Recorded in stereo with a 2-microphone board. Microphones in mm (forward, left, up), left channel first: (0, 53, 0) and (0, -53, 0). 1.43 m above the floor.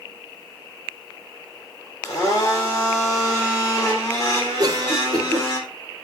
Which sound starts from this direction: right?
A cough, at 4.6 s.